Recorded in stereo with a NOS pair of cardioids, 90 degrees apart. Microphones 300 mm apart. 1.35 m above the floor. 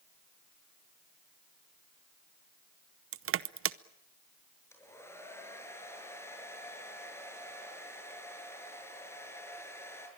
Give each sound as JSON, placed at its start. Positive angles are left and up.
{"t": 3.1, "sound": "crushing", "azimuth_deg": -50, "distance_m": 0.8}
{"t": 4.7, "sound": "a hair dryer", "azimuth_deg": 10, "distance_m": 6.5}